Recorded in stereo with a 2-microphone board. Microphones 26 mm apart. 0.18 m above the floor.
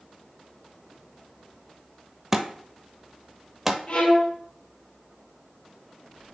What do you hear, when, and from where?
2.3 s a thud: 15° right (ahead or behind), 0.8 m
3.9 s a violin: 55° left (ahead or behind), 4 m